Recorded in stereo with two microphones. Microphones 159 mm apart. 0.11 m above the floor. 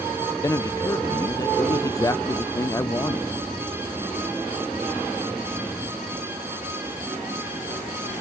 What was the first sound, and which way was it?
A man speaking, 20° left (ahead or behind).